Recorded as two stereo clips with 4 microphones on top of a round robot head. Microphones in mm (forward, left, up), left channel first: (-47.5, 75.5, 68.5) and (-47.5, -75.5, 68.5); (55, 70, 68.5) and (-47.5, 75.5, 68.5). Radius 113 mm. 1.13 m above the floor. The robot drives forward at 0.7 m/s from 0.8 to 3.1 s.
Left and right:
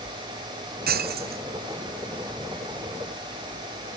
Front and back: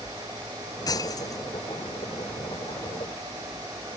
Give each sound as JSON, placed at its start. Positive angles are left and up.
{"t": 0.9, "sound": "breaking glass", "azimuth_deg": -65}